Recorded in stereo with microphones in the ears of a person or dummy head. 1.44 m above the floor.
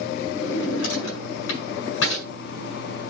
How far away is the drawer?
About 6 m.